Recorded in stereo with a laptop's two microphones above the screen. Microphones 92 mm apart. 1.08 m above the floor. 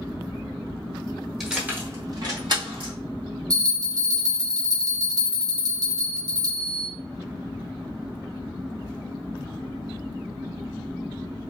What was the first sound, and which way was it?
Keys jangling, centre (ahead or behind).